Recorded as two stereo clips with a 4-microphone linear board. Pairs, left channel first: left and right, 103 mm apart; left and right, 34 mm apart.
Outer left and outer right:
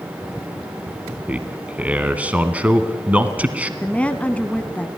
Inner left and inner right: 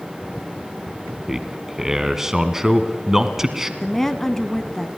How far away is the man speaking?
About 1.3 m.